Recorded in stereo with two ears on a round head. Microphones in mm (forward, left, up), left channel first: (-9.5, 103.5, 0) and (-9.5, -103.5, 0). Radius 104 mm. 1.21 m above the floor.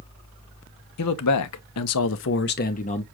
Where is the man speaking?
70° left (ahead or behind), 0.9 m; by 3.0 s 25° left (ahead or behind), 0.8 m.